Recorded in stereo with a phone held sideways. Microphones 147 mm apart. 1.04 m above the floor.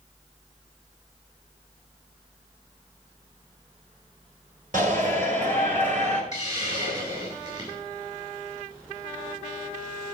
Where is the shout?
65° right (ahead or behind), 4 m; by 6.2 s 55° right (ahead or behind), 4.5 m.